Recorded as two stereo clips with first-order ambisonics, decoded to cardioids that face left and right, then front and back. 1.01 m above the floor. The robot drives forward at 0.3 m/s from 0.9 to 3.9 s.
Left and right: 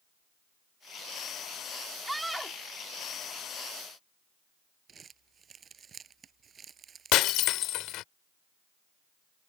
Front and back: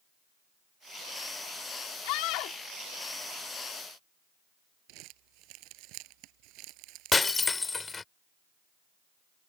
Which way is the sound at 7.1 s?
75° left.